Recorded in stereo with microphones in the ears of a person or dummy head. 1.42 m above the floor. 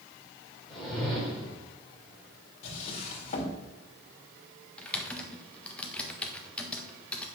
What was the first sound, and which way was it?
A whoosh, centre (ahead or behind).